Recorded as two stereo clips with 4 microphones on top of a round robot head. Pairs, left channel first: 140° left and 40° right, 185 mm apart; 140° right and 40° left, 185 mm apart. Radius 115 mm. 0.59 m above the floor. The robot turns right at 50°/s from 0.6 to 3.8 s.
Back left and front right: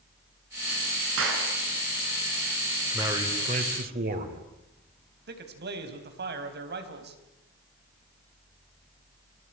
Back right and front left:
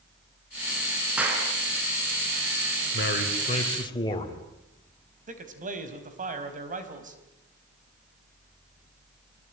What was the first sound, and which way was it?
A clap, 45° right.